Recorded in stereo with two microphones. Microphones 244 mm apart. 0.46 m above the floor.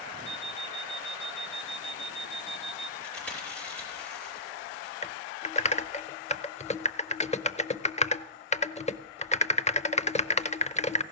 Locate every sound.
0.2 s an alarm clock: 5° left (ahead or behind), 5.5 m
3.0 s chewing: 5° left (ahead or behind), 6 m
5.0 s typing on a keyboard: 25° left (ahead or behind), 0.6 m